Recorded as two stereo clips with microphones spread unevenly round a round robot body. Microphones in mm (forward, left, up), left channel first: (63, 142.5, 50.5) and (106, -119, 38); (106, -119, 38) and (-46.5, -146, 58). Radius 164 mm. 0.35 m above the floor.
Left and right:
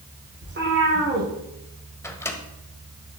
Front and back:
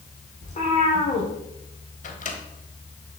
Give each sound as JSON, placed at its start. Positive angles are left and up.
{"t": 0.4, "sound": "a cat meowing", "azimuth_deg": -30, "distance_m": 3.5}
{"t": 2.0, "sound": "a microwave", "azimuth_deg": 20, "distance_m": 1.5}